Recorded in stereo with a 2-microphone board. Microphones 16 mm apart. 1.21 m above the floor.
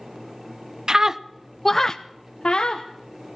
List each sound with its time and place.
0.9 s a scream: 45° right (ahead or behind), 0.7 m; by 2.9 s 65° left (ahead or behind), 1.1 m